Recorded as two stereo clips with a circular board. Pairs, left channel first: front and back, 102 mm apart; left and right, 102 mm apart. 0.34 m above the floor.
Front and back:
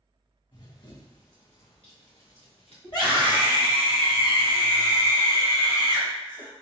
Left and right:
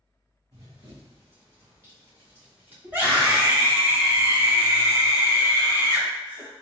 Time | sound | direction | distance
0.5 | running footsteps | 40° right | 1.7 m
2.8 | a scream | 25° right | 2.0 m